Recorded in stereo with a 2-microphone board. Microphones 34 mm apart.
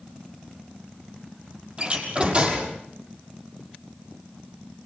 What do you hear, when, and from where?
1.8 s a door slam: 35° right (ahead or behind), 6 m